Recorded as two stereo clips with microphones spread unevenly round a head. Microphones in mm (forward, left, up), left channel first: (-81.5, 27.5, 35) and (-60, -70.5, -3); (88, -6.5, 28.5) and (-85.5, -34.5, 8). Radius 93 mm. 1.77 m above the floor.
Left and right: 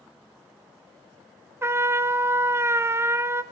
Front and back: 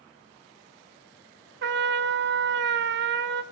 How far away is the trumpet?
About 1.0 m.